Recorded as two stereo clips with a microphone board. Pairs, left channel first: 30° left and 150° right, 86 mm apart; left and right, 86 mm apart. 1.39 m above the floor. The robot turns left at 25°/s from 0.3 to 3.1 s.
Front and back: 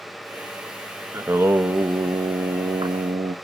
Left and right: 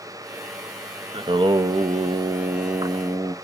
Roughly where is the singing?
Right.